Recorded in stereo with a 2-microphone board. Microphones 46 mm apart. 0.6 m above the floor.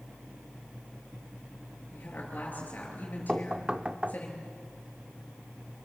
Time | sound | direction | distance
1.9 | a woman speaking | 40° left (ahead or behind) | 9.5 m
3.3 | knocking | 20° right (ahead or behind) | 0.6 m